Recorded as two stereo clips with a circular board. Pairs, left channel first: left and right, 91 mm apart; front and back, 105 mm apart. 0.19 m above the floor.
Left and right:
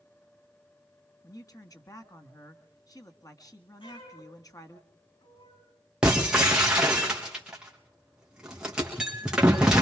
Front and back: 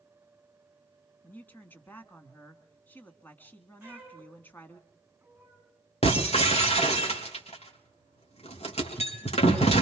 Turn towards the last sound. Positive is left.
turn(degrees=-10)